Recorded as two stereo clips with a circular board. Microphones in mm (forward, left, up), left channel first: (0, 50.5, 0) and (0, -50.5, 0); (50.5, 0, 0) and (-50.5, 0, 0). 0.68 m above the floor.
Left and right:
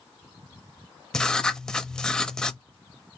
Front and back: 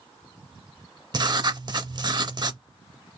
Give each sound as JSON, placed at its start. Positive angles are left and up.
{"t": 1.1, "sound": "writing", "azimuth_deg": 170, "distance_m": 0.5}